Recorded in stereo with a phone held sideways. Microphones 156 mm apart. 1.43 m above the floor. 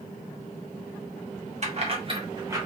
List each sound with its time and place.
1.6 s keys jangling: 45° right (ahead or behind), 1.1 m; by 2.6 s 15° right (ahead or behind), 1.1 m